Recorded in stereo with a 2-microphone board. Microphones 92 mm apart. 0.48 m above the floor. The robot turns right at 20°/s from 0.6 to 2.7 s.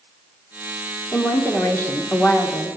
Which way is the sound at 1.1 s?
25° left (ahead or behind).